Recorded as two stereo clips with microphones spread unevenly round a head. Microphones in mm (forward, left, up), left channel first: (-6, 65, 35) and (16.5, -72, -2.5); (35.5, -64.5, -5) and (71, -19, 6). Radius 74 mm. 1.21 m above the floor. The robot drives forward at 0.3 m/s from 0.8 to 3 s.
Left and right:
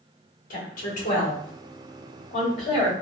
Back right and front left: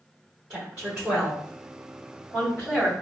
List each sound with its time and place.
0.5 s a woman speaking: 135° left, 1.7 m; by 2.9 s 150° left, 2 m